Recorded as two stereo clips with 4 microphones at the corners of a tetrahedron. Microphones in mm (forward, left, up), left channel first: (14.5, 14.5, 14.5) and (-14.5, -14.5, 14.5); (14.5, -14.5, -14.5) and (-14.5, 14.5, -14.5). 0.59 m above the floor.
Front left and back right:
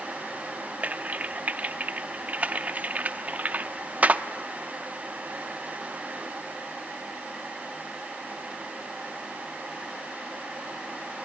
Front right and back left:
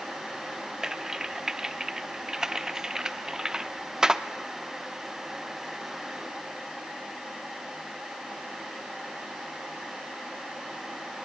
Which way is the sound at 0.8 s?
155° right.